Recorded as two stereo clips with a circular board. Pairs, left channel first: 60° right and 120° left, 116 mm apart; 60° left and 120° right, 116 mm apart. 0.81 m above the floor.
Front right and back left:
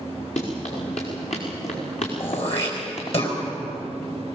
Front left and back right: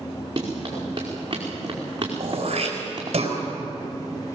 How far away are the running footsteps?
About 5.5 m.